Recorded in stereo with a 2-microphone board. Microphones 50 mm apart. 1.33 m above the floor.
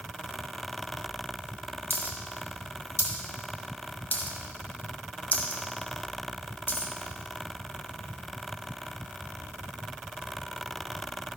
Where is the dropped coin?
40° left (ahead or behind), 1.4 m.